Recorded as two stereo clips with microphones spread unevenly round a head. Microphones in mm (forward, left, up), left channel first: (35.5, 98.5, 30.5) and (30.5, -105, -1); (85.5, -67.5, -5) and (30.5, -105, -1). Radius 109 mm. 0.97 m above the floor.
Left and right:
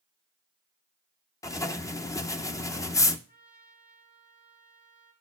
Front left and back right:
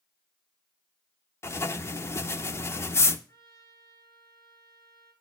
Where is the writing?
10° left, 0.7 m.